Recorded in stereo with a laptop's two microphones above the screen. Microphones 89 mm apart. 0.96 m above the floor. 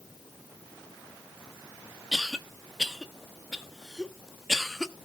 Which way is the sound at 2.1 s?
Centre (ahead or behind).